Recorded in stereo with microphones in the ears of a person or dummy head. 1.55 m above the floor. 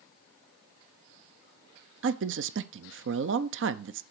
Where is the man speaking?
60° right (ahead or behind), 0.5 m.